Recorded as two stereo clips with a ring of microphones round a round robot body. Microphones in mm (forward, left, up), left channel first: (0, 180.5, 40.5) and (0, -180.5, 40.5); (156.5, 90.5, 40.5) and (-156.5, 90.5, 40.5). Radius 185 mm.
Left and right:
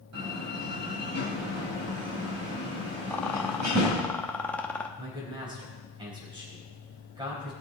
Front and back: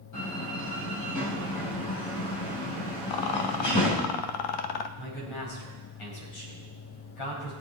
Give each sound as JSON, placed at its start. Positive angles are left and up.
{"t": 0.1, "sound": "a door slam", "azimuth_deg": -45, "distance_m": 4.0}
{"t": 3.1, "sound": "a rattle", "azimuth_deg": 5, "distance_m": 1.0}
{"t": 5.0, "sound": "a man speaking", "azimuth_deg": -10, "distance_m": 5.0}